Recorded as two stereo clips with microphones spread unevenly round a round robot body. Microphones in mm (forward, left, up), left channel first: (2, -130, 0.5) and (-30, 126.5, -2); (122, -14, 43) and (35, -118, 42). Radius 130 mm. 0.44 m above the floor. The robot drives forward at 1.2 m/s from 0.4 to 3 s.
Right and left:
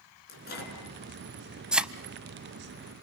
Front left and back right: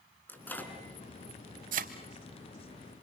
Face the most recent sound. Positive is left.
turn(degrees=180)